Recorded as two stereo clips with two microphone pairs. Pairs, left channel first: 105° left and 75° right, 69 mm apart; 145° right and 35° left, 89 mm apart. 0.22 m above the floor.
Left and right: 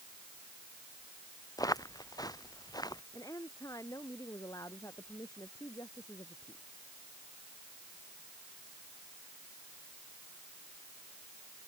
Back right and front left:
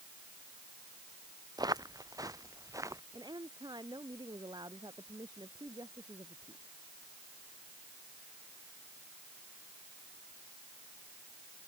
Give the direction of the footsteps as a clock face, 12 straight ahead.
9 o'clock.